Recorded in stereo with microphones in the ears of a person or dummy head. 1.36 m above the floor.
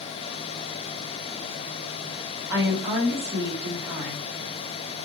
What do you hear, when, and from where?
2.5 s a woman speaking: 10° right (ahead or behind), 2 m